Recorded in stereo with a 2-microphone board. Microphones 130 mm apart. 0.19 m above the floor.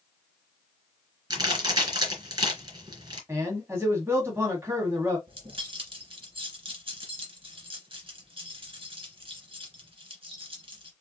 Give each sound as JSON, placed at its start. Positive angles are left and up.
{"t": 1.3, "sound": "a crack", "side_deg": -35, "distance_m": 3.0}
{"t": 3.3, "sound": "a man speaking", "side_deg": -20, "distance_m": 1.6}
{"t": 5.3, "sound": "keys jangling", "side_deg": -45, "distance_m": 1.9}